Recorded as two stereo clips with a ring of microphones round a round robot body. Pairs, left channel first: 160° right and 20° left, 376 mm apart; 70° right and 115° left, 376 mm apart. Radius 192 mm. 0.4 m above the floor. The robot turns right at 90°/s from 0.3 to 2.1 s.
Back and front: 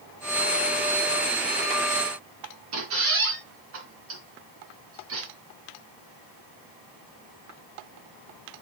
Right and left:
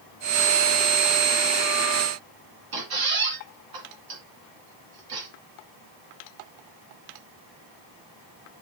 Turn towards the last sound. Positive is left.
turn(degrees=80)